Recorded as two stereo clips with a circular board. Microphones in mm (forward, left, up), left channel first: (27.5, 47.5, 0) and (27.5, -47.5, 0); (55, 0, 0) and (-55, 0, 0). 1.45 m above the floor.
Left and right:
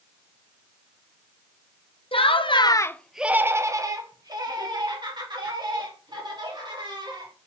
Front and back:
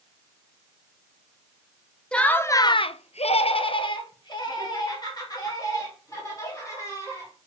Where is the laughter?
80° left, 0.8 m; by 7.3 s 60° right, 4 m.